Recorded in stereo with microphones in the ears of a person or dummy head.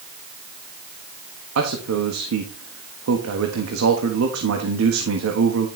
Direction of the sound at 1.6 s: 85° right.